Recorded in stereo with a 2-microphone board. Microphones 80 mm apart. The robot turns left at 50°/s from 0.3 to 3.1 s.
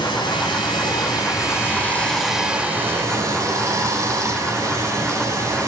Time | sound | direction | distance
0.0 | running water | 100° left | 2.5 m